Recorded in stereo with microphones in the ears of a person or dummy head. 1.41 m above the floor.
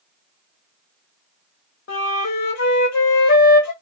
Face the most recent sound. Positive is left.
turn(degrees=55)  # may be behind; listen again after turning